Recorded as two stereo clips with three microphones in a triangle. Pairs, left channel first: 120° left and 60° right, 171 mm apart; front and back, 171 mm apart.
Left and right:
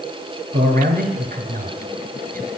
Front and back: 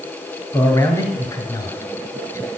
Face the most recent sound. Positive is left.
turn(degrees=-65)